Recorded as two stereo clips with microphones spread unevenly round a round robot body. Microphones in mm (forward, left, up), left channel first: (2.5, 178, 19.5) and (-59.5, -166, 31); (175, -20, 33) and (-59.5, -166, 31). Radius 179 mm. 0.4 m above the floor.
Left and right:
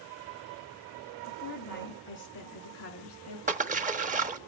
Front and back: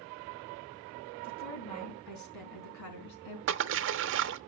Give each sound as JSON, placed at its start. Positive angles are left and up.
{"t": 1.2, "sound": "a woman speaking", "azimuth_deg": 15, "distance_m": 3.5}
{"t": 3.5, "sound": "a splash", "azimuth_deg": -165, "distance_m": 0.7}